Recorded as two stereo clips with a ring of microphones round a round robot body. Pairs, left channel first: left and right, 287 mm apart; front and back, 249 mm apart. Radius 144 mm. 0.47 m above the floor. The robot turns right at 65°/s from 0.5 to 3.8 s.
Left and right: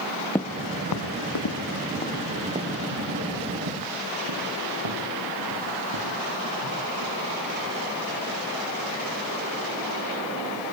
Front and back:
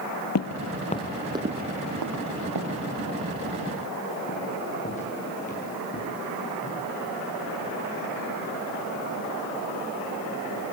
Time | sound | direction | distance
0.3 | footsteps | 5° left | 1.0 m